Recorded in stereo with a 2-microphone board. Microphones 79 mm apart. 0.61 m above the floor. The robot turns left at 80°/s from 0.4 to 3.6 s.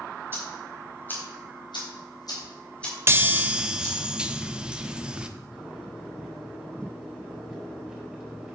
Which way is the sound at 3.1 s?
120° right.